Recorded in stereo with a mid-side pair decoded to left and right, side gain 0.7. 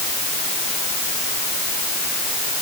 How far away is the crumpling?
No crumpling in this recording.